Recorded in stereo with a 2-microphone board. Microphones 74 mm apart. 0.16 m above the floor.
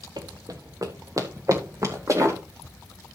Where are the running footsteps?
55° right (ahead or behind), 1.1 m; by 2.4 s 40° right (ahead or behind), 2.5 m.